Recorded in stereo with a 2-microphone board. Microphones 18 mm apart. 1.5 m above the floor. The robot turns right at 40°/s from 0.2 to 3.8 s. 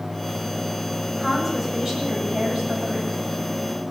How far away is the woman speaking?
About 8.5 m.